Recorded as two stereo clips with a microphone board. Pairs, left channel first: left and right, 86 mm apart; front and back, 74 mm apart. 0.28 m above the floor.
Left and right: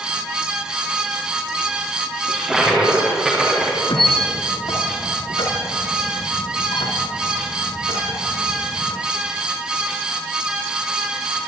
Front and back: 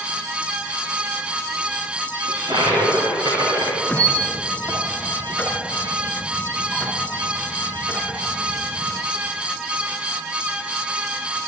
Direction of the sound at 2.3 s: 175° right.